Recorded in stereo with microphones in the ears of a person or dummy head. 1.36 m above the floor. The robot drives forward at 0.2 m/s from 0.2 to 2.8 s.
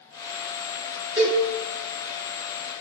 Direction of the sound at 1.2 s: 15° right (ahead or behind).